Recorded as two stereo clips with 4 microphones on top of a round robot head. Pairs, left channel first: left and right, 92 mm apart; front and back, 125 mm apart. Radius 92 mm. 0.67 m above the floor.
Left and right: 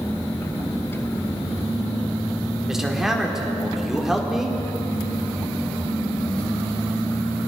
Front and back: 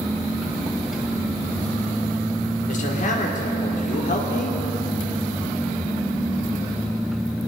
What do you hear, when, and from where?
2.7 s a man speaking: 5° right, 2 m